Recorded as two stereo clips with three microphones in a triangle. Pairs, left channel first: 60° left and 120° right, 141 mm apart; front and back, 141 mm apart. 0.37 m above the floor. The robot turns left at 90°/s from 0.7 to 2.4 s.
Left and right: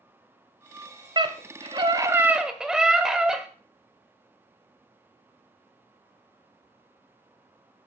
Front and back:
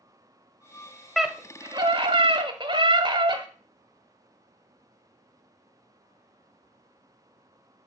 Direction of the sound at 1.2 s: 90° right.